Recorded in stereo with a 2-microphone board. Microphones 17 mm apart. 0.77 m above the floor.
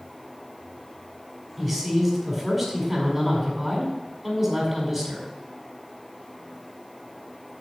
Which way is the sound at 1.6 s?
25° right (ahead or behind).